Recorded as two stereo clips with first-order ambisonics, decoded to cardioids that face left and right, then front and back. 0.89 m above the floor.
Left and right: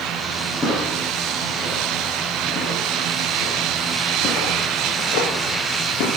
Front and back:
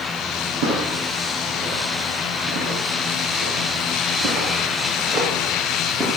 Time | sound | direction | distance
0.6 | footsteps | 170° left | 6.5 m